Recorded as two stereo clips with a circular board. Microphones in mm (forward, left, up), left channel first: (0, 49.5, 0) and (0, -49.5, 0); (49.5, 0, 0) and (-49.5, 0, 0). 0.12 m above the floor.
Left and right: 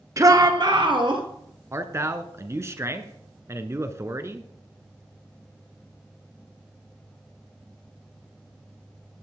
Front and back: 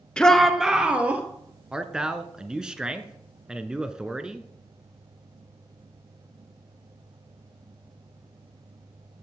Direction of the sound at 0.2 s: 75° right.